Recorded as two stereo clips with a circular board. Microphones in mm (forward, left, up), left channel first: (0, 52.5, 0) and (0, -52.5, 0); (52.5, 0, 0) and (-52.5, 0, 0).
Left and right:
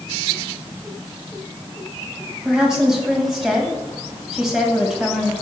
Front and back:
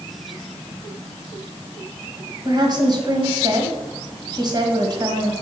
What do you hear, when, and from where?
2.5 s a woman speaking: 170° right, 1.5 m